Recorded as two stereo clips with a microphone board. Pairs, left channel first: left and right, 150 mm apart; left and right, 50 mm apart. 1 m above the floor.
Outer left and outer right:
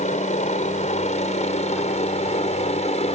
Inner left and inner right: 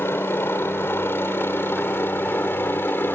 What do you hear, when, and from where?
0.0 s a helicopter: 60° left (ahead or behind); by 3.2 s 50° left (ahead or behind)